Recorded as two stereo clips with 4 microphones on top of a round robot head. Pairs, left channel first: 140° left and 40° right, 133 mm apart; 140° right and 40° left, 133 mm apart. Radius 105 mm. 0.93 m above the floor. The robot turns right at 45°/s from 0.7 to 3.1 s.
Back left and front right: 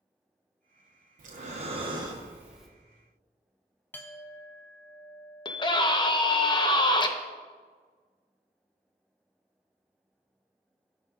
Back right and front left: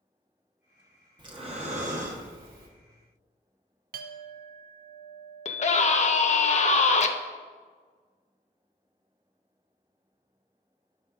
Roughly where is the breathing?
Ahead.